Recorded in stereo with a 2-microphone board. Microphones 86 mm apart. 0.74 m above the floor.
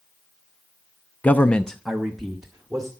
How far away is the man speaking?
About 0.6 m.